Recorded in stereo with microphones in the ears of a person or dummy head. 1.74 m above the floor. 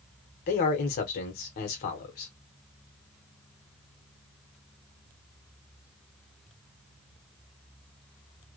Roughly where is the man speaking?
Left.